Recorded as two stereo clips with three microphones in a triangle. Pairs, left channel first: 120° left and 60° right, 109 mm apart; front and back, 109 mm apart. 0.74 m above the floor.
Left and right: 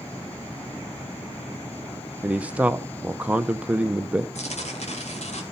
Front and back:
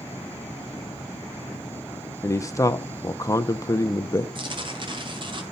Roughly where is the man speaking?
Ahead.